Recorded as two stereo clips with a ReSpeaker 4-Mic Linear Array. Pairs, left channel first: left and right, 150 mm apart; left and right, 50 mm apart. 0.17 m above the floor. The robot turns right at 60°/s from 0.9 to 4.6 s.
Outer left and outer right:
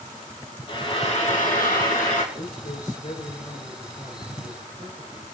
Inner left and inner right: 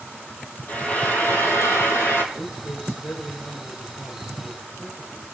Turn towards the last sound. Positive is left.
turn(degrees=-145)